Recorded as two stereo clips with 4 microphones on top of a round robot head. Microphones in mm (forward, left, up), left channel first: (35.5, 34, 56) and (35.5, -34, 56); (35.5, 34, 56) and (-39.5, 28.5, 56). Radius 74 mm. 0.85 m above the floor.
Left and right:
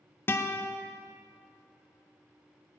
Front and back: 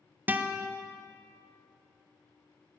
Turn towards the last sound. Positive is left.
turn(degrees=130)